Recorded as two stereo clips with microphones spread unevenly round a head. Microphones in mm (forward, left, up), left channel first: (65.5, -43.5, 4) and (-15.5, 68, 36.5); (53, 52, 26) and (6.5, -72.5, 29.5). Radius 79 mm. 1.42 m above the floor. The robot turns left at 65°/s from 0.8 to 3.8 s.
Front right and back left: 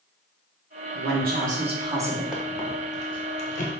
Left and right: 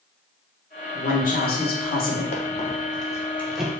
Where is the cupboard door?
No cupboard door in this recording.